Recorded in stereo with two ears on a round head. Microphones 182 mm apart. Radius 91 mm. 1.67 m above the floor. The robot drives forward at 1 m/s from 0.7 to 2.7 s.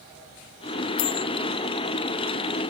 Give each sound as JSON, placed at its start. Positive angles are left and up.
{"t": 1.0, "sound": "a bell", "side_deg": 70}